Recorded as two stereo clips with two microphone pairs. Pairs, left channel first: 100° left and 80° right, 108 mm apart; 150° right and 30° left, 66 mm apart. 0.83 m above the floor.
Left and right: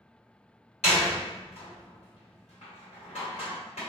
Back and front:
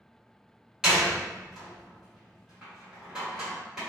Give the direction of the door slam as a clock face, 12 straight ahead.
8 o'clock.